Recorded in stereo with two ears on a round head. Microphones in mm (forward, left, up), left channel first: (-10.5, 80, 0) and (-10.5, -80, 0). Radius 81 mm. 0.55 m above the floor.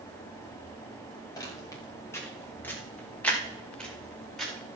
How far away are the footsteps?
About 5 m.